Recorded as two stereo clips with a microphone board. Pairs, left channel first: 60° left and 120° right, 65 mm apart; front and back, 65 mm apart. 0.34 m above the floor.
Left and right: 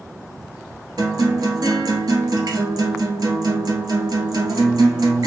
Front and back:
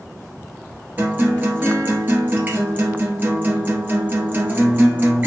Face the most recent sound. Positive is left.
turn(degrees=-120)